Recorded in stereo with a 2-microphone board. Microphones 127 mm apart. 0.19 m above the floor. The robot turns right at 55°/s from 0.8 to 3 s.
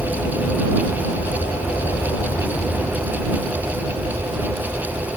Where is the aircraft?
65° left; by 5.2 s 170° right.